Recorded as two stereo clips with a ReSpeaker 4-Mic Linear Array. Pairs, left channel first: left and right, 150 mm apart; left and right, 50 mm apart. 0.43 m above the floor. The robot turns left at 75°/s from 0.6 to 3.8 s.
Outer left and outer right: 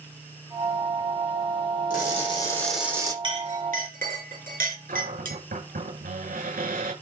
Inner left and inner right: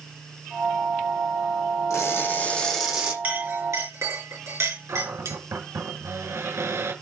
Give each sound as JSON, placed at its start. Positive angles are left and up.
{"t": 1.9, "sound": "crushing", "azimuth_deg": 65, "distance_m": 7.5}
{"t": 3.2, "sound": "a clink", "side_deg": -30, "distance_m": 5.0}
{"t": 4.9, "sound": "a cupboard door", "side_deg": -75, "distance_m": 8.0}